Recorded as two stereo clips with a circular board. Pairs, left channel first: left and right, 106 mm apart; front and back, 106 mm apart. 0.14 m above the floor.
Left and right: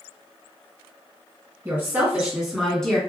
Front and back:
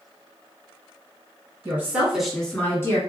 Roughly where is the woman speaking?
Behind right.